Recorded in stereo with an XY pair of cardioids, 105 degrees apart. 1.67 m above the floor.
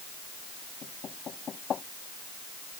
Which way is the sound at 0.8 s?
50° left.